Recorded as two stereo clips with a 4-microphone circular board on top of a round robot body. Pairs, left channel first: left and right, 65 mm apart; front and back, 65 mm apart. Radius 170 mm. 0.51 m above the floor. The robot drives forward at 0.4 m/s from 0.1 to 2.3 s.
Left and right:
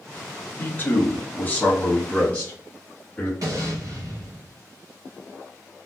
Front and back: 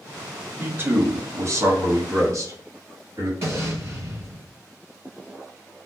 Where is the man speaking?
135° left, 1.0 m; by 3.3 s 155° left, 1.5 m.